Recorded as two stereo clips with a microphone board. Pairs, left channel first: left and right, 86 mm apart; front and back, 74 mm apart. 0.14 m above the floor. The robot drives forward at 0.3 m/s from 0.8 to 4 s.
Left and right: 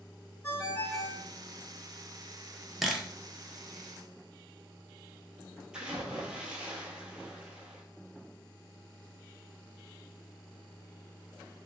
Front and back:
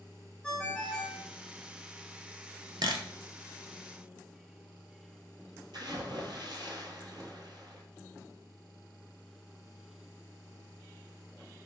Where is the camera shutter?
Straight behind, 0.6 m.